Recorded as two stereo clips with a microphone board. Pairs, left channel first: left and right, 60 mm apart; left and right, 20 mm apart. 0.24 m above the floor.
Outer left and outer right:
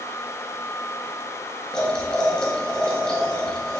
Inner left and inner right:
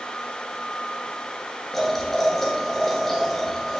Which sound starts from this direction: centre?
Boiling, at 1.7 s.